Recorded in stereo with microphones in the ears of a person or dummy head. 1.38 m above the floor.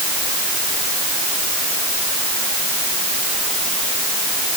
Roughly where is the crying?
No crying in this recording.